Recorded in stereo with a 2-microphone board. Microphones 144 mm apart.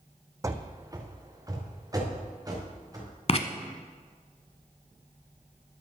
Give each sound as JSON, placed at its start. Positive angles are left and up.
{"t": 0.4, "sound": "running footsteps", "side_deg": -20, "distance_m": 0.7}
{"t": 3.3, "sound": "writing", "side_deg": 45, "distance_m": 0.7}